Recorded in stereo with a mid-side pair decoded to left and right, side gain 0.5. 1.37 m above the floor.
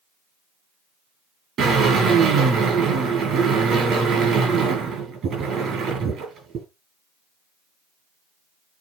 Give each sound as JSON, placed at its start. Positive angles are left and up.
{"t": 1.6, "sound": "a drill", "azimuth_deg": -55, "distance_m": 10.0}